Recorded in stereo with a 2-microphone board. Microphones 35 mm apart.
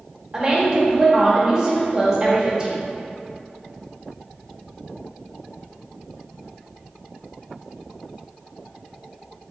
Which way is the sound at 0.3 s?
25° right (ahead or behind).